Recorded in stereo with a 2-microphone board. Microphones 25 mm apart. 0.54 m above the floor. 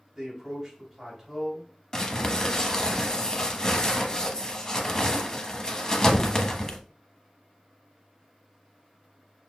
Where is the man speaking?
5° right (ahead or behind), 3 m.